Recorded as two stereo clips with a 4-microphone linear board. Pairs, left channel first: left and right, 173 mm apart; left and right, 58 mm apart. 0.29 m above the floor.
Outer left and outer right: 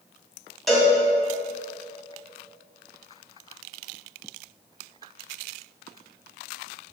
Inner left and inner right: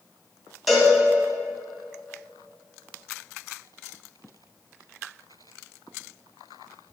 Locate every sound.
0.7 s a cowbell: centre (ahead or behind), 1.9 m